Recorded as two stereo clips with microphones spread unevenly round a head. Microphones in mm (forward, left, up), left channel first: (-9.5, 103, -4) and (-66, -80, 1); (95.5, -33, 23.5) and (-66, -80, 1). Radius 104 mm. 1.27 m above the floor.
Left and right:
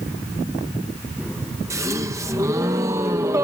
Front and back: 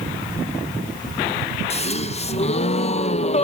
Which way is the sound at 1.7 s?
30° right.